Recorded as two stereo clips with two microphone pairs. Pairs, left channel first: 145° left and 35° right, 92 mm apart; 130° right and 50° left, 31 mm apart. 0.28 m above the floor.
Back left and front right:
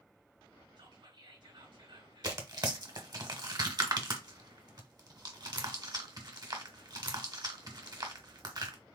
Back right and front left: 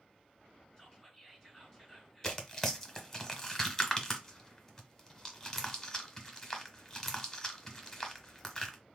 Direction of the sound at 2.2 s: 60° right.